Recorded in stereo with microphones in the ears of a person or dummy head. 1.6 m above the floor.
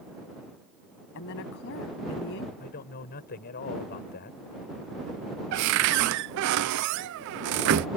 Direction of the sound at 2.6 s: 50° left (ahead or behind).